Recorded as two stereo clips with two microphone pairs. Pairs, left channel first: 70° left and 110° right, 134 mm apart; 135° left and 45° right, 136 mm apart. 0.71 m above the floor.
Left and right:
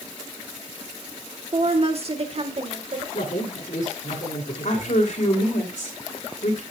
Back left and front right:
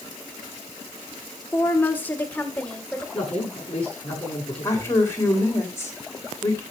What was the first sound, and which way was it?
A woman speaking, 155° right.